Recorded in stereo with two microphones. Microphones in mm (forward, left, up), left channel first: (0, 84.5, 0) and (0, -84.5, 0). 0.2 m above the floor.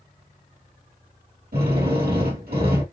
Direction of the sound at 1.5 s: 80° right.